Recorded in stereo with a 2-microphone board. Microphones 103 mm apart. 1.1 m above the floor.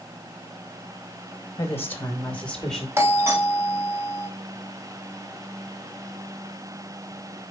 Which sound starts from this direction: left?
A woman speaking, at 1.6 s.